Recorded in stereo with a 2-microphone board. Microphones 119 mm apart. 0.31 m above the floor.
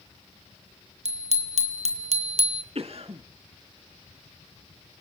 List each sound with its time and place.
1.1 s a bicycle bell: 75° right (ahead or behind), 3 m; by 2.6 s 60° right (ahead or behind), 2.5 m
2.8 s a cough: 60° right (ahead or behind), 2.5 m